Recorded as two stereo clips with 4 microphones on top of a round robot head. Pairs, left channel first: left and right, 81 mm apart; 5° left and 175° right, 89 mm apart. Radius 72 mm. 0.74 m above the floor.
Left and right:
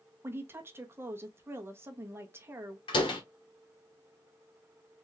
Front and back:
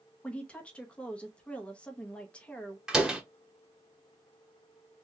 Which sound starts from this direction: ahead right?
A woman speaking, at 0.2 s.